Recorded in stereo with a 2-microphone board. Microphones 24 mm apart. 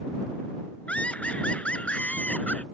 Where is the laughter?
75° left (ahead or behind); by 2.6 s 70° left (ahead or behind).